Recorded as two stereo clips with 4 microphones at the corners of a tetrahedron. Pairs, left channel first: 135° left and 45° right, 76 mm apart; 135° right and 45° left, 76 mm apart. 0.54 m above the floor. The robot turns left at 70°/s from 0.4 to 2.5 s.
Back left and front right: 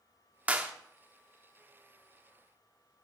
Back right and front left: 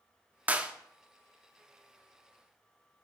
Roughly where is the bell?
I don't hear a bell.